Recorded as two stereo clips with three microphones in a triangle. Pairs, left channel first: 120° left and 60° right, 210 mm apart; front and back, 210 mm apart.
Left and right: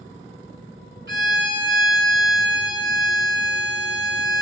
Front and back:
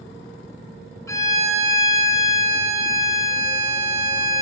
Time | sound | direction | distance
1.1 | a violin | 75° right | 1.1 m